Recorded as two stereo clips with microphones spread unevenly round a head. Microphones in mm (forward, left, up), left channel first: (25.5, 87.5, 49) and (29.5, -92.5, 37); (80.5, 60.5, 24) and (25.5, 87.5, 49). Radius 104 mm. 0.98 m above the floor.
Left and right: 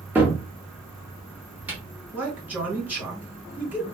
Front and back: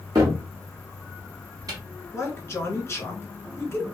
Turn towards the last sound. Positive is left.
turn(degrees=-10)